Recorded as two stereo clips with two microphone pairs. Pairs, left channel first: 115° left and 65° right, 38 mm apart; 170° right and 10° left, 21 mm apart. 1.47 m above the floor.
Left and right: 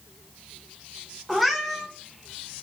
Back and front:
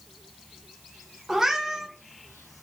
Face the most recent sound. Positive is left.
turn(degrees=20)